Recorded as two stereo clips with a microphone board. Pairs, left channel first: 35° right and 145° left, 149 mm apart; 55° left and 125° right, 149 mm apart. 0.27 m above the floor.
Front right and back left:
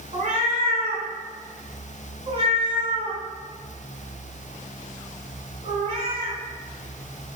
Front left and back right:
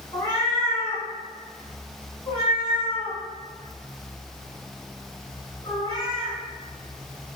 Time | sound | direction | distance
0.1 | a cat meowing | 110° left | 0.8 m